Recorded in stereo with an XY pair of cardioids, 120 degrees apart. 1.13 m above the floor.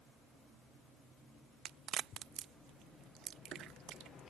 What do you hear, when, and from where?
1.6 s a crack: 65° right